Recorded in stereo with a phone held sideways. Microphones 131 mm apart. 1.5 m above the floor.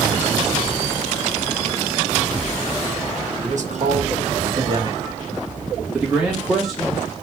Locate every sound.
3.4 s a man speaking: 70° right (ahead or behind), 1.4 m; by 7.1 s 5° left (ahead or behind), 2.5 m